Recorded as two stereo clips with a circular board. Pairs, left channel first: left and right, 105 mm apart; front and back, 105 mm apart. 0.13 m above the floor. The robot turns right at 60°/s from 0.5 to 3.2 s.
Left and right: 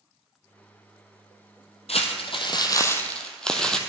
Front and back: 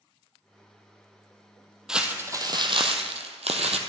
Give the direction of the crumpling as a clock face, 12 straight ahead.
9 o'clock.